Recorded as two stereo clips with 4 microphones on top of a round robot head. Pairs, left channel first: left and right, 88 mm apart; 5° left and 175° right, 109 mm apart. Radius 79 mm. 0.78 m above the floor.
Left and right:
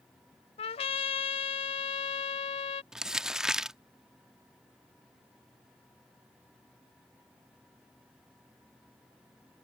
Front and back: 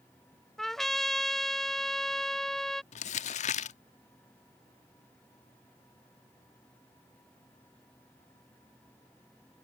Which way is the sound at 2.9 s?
5° right.